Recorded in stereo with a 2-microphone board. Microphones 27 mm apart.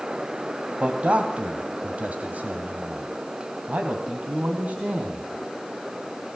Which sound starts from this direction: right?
A man speaking, at 0.8 s.